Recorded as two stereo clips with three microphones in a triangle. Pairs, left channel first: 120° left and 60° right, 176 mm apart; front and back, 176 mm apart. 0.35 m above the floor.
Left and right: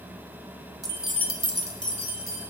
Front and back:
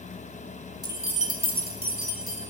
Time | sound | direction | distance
0.8 | keys jangling | 120° right | 0.9 m